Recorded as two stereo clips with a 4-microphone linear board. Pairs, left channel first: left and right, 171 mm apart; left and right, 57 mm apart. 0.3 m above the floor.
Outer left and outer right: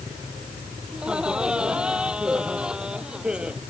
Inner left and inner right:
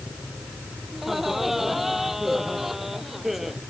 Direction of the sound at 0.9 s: 5° right (ahead or behind).